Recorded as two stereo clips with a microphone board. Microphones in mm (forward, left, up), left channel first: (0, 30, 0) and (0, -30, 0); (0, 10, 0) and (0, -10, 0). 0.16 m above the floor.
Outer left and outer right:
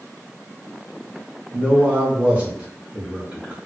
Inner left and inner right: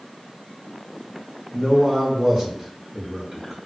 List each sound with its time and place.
1.5 s a man speaking: 20° right (ahead or behind), 1.2 m